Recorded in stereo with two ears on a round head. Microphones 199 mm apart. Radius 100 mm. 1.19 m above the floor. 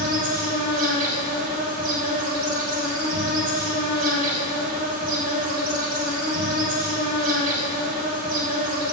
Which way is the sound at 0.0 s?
40° right (ahead or behind).